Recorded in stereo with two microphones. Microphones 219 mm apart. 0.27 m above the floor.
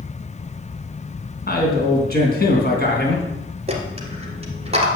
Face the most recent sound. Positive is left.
turn(degrees=-30)  # may be behind; listen again after turning